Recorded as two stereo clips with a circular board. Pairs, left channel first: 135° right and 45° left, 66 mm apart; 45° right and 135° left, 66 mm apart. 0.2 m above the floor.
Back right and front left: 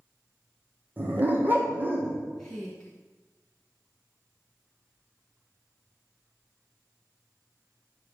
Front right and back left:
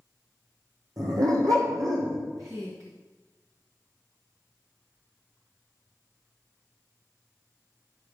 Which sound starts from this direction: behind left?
A woman speaking, at 2.4 s.